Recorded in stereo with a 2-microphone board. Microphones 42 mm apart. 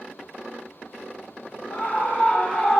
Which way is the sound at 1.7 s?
40° left (ahead or behind).